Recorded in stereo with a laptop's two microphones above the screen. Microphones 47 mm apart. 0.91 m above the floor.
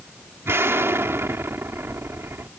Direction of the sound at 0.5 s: 60° right (ahead or behind).